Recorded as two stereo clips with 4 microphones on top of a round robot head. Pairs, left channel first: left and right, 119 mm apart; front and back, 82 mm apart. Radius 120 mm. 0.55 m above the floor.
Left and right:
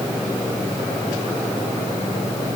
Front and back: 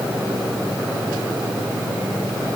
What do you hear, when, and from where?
Only background noise.